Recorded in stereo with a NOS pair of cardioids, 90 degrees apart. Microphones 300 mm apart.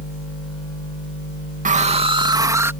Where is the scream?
25° right; by 2.7 s 10° right.